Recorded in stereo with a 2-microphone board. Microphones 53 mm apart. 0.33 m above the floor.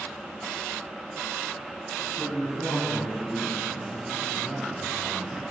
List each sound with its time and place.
2.2 s a man speaking: 45° left (ahead or behind), 3.5 m